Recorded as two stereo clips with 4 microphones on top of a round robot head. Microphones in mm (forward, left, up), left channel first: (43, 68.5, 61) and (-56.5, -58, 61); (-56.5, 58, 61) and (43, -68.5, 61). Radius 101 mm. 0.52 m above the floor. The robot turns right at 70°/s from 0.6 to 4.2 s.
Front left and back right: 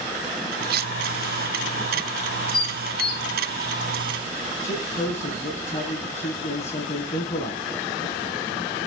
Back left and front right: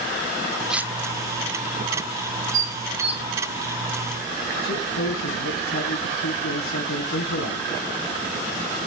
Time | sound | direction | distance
0.7 | cutlery clinking | 140° right | 0.7 m
2.5 | dishes clattering | 15° right | 3.5 m
4.6 | a man speaking | 100° left | 4 m